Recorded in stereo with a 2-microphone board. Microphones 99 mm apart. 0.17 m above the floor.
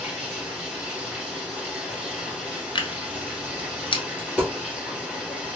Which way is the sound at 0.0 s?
10° right (ahead or behind).